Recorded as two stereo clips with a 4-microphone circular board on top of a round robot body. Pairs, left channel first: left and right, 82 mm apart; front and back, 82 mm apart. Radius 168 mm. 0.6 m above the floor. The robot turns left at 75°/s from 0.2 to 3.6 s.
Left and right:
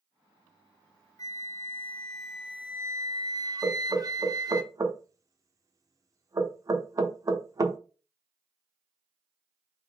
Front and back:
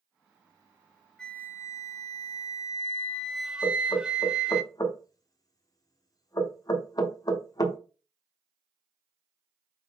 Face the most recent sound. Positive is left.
turn(degrees=-40)